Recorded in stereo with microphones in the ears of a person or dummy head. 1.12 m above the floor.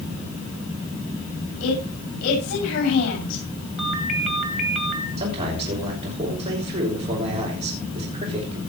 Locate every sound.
1.6 s a woman speaking: 80° left, 6.5 m
3.8 s a ringtone: centre (ahead or behind), 3 m
5.2 s a man speaking: 30° right (ahead or behind), 5.5 m